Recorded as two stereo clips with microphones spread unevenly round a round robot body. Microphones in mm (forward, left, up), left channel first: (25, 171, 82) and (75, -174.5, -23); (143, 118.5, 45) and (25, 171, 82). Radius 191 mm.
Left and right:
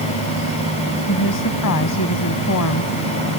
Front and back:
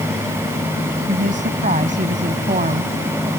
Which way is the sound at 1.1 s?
150° left.